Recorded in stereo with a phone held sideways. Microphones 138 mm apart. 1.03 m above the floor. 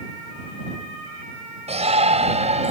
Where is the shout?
50° right (ahead or behind); by 2.7 s 55° right (ahead or behind).